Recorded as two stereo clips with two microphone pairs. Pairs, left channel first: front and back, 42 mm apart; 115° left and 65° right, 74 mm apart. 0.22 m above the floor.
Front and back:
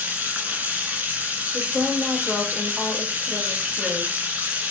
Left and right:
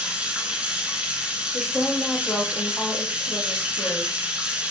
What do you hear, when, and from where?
0.0 s running water: 140° right, 1.7 m
1.5 s a woman speaking: 145° left, 1.1 m